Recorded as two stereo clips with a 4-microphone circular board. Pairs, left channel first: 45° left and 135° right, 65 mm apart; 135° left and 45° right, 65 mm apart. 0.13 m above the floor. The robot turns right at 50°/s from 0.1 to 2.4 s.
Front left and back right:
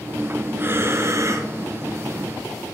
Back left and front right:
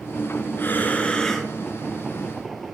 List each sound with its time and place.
0.6 s breathing: straight behind, 0.9 m; by 1.5 s 135° right, 0.9 m